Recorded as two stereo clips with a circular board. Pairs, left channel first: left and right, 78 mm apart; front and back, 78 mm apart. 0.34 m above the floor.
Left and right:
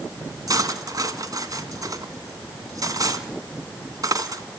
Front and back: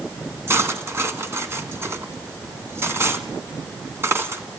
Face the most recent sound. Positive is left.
turn(degrees=-125)